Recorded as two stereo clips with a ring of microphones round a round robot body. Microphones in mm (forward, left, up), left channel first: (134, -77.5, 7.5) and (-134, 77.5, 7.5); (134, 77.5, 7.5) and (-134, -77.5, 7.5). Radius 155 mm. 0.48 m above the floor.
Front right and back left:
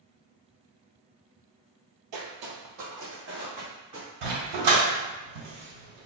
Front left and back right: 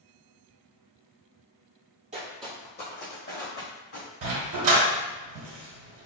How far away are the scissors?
I don't hear scissors.